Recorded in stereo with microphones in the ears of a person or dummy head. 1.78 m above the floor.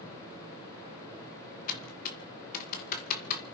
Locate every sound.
1.7 s typing on a keyboard: 50° left (ahead or behind), 2 m